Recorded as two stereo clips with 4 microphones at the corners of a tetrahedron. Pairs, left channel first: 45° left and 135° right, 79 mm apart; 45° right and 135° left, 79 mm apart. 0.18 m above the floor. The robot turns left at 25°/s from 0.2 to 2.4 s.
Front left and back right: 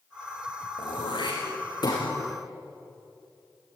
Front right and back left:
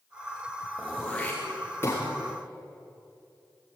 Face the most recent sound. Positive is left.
turn(degrees=0)